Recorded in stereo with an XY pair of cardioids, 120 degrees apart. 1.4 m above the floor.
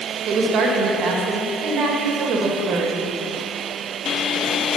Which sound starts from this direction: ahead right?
A woman speaking, at 0.2 s.